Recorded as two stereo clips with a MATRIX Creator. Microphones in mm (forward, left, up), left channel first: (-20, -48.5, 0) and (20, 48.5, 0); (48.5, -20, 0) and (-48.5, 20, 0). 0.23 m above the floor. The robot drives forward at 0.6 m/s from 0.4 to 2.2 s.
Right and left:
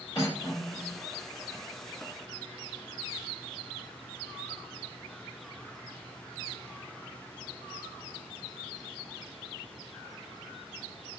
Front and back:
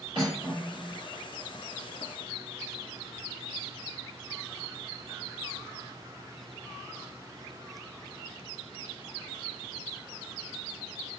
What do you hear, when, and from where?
0.1 s cutlery clinking: 160° right, 2.0 m; by 1.0 s 165° right, 2.5 m